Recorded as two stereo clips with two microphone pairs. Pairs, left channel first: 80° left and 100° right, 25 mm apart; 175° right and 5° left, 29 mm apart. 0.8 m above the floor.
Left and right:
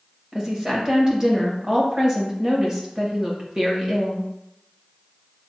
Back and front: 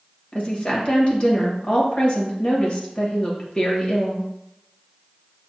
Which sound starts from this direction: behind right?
A woman speaking, at 0.3 s.